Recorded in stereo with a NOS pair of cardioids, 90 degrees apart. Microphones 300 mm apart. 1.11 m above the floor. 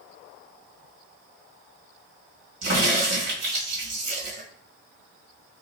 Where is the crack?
65° right, 2 m.